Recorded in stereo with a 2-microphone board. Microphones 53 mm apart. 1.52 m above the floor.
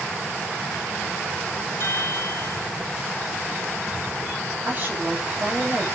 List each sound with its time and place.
1.8 s a chime: 50° left (ahead or behind), 1.4 m
4.7 s a woman speaking: 35° right (ahead or behind), 9 m